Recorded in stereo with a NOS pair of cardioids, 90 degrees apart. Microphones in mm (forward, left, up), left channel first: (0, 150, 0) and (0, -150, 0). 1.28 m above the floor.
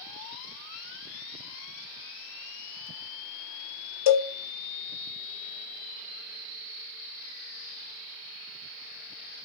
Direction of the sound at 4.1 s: 60° left.